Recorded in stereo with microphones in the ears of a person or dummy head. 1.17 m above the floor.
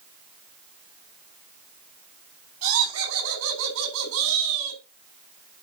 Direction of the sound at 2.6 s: 85° right.